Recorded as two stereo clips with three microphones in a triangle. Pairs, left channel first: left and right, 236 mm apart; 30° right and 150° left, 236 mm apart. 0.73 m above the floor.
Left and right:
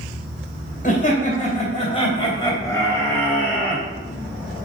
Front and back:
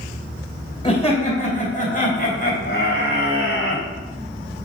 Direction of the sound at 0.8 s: 35° left.